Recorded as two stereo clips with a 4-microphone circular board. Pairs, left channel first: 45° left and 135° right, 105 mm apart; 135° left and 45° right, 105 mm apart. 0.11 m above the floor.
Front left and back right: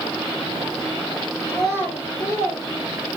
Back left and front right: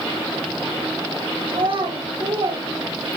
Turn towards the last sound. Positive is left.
turn(degrees=-15)